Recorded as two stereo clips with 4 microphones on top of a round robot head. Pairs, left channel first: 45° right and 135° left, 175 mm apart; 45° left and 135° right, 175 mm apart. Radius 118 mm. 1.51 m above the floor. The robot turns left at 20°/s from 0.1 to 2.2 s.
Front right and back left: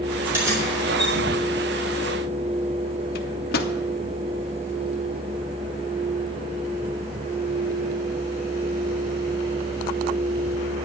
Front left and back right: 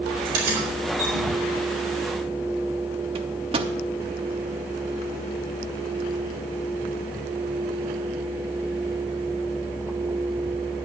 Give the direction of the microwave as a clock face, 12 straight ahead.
3 o'clock.